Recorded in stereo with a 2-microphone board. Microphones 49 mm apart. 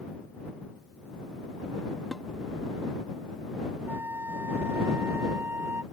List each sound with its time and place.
2.1 s dishes clattering: 5° left (ahead or behind)
3.9 s a flute: 55° right (ahead or behind)